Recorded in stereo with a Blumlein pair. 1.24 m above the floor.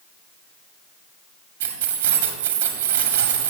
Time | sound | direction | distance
1.6 | keys jangling | 55° right | 1.6 m